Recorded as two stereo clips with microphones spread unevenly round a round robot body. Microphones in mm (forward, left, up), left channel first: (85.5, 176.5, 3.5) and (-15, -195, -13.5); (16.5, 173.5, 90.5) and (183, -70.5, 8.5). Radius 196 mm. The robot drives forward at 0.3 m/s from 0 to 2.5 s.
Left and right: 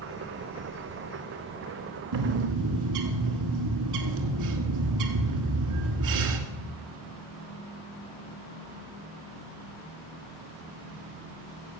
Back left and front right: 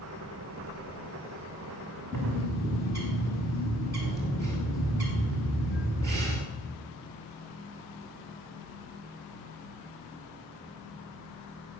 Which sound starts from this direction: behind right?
A bird, at 2.1 s.